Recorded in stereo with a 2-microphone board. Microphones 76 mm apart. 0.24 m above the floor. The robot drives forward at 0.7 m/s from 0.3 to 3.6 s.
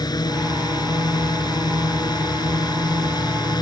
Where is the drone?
60° left (ahead or behind); by 3.6 s 65° left (ahead or behind).